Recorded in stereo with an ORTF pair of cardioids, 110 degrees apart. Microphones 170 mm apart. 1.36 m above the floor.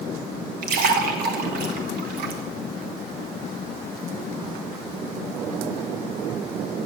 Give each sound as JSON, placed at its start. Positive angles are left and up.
{"t": 0.6, "sound": "a splash", "azimuth_deg": -65, "distance_m": 1.4}